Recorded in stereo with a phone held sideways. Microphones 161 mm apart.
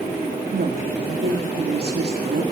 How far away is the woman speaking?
About 1.9 m.